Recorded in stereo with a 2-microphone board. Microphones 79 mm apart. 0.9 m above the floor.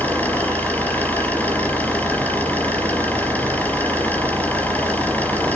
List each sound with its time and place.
0.0 s an engine running: 20° left (ahead or behind), 4.5 m